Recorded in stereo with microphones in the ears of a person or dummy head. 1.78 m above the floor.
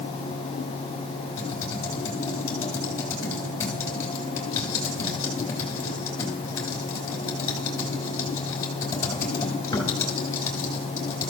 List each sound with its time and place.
1.4 s typing on a keyboard: 15° left (ahead or behind), 3.5 m